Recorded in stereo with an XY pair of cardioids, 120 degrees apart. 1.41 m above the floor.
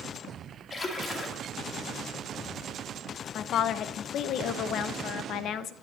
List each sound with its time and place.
0.7 s a splash: 30° left, 2.5 m
3.4 s a woman speaking: 65° left, 0.9 m